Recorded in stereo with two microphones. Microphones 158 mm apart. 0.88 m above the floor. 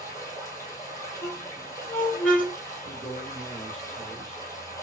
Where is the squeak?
10° left (ahead or behind), 4 m.